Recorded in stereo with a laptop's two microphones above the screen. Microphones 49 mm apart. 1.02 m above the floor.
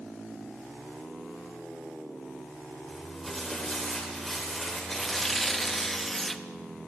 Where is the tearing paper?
5° left (ahead or behind), 0.6 m.